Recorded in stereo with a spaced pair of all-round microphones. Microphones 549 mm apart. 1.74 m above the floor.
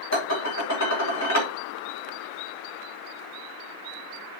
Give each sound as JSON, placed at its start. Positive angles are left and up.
{"t": 0.1, "sound": "dishes clattering", "side_deg": 30, "distance_m": 3.0}